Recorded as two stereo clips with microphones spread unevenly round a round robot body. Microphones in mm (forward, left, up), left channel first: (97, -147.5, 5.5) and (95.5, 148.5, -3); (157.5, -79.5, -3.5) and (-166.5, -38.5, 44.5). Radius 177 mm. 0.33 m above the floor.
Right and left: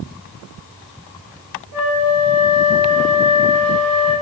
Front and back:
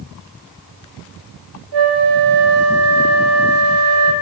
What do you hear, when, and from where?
1.7 s a flute: 145° right, 1.4 m